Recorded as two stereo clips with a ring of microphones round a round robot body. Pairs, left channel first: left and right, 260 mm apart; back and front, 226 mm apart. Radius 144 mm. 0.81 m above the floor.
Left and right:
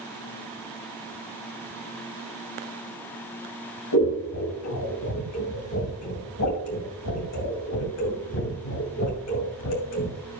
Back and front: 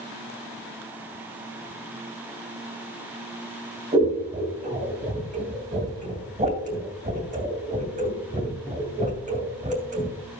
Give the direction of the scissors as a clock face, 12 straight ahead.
10 o'clock.